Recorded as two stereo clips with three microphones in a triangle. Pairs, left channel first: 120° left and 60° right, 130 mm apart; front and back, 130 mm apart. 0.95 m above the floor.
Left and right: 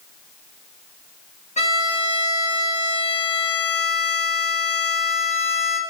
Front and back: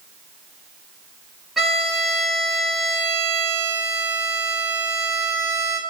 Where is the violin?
90° left, 1.6 m.